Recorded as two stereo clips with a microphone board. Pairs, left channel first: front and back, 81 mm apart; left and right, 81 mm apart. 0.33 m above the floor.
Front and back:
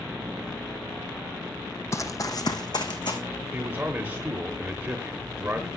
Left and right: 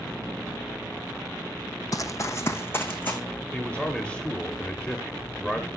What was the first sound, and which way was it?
Running footsteps, 50° left.